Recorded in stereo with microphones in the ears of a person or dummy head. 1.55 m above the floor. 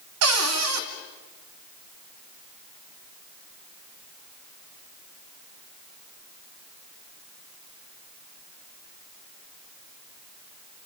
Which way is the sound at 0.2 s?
80° right.